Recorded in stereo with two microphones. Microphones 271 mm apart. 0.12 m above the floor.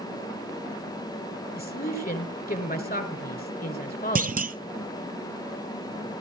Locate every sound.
1.6 s a man speaking: 35° left (ahead or behind), 2 m
4.2 s a clunk: 35° right (ahead or behind), 0.5 m